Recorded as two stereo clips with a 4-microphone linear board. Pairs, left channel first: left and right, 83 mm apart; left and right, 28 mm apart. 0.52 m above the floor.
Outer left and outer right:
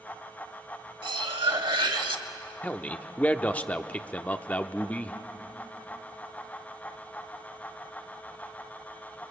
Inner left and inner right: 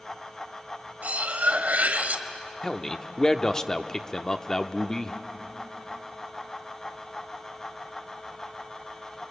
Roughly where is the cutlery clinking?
Right.